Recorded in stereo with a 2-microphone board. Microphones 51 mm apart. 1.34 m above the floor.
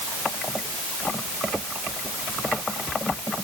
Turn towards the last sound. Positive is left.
No sound to turn to.